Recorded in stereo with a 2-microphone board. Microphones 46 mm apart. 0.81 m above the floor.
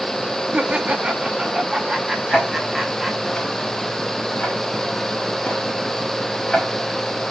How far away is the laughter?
About 1.3 m.